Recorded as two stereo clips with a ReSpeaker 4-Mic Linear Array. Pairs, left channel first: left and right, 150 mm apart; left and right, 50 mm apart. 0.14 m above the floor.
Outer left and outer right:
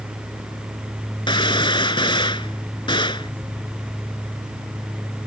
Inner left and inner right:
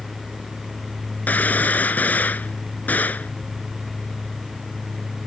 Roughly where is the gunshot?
Left.